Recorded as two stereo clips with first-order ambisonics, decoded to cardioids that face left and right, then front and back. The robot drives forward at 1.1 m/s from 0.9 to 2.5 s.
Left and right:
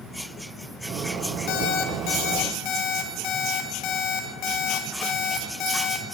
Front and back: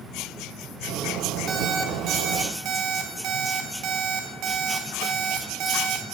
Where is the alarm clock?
115° left, 3.5 m; by 6.0 s 130° left, 4 m.